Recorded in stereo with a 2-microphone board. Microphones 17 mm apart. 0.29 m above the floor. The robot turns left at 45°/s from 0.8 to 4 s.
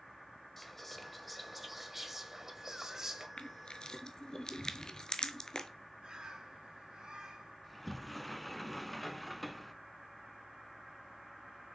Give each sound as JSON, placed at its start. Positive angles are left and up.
{"t": 0.6, "sound": "whispering", "side_deg": 15, "distance_m": 1.1}
{"t": 3.4, "sound": "crushing", "side_deg": 75, "distance_m": 0.7}
{"t": 6.0, "sound": "a bird", "side_deg": -65, "distance_m": 2.0}
{"t": 7.6, "sound": "a sliding door", "side_deg": 10, "distance_m": 0.5}